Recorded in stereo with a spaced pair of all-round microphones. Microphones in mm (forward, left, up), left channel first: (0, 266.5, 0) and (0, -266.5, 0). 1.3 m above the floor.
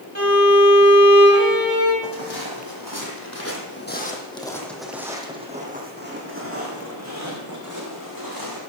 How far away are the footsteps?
About 2.5 m.